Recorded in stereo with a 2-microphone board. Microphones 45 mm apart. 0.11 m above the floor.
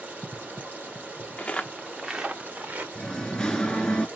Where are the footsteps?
35° left (ahead or behind), 0.7 m; by 2.9 s 45° right (ahead or behind), 1.3 m.